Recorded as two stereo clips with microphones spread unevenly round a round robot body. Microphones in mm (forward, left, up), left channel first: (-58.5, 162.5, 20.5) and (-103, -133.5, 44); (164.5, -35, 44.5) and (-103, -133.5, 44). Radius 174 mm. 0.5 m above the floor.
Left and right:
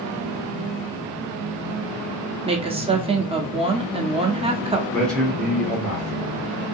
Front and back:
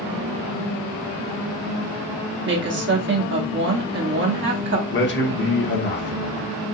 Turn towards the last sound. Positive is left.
turn(degrees=0)